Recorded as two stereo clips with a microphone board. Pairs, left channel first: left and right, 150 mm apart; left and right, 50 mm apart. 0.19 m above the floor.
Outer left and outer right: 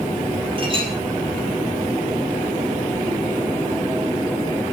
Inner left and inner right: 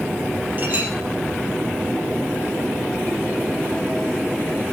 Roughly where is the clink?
Right.